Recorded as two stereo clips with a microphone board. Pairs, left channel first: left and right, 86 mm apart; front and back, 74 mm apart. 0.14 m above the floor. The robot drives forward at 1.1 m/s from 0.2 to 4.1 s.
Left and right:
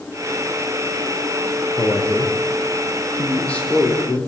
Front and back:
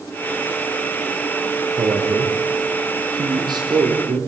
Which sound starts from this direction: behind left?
A man speaking, at 1.8 s.